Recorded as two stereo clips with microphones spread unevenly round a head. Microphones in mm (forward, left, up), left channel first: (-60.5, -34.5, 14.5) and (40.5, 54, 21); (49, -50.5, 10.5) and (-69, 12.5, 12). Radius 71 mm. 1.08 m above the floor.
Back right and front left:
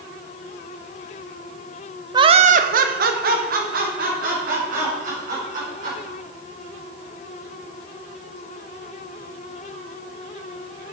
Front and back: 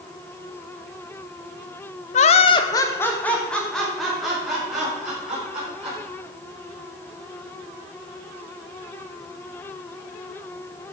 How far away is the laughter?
About 0.8 m.